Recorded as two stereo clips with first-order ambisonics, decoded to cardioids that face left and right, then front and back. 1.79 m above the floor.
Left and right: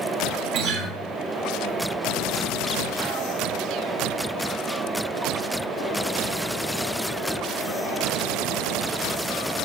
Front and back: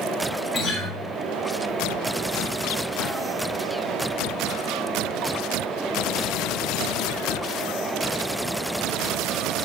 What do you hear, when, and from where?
0.5 s a guitar: 90° right, 3 m